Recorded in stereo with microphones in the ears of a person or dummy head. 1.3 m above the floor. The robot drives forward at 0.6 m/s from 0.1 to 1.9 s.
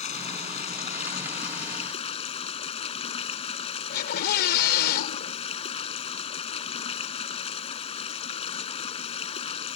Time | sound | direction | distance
0.0 | running water | 35° left (ahead or behind) | ?
3.9 | a scream | 55° left (ahead or behind) | ?